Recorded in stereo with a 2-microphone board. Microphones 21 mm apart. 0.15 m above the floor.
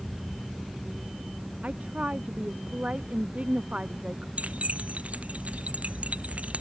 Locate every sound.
1.6 s a woman speaking: 75° right (ahead or behind); by 4.3 s 70° right (ahead or behind)
4.4 s keys jangling: 85° right